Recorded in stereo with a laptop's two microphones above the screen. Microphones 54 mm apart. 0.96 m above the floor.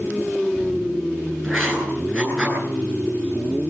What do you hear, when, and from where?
1.4 s writing: 10° left (ahead or behind), 10 m